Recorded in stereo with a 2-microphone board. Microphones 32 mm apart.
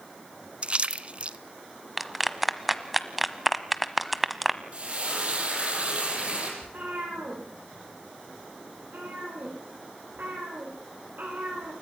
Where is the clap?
5° right (ahead or behind), 1.1 m.